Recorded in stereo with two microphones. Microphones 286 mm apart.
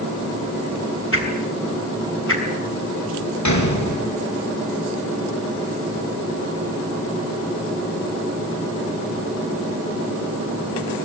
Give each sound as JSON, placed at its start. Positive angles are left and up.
{"t": 1.1, "sound": "a whoosh", "side_deg": 45, "distance_m": 6.0}
{"t": 3.5, "sound": "a gunshot", "side_deg": 70, "distance_m": 5.0}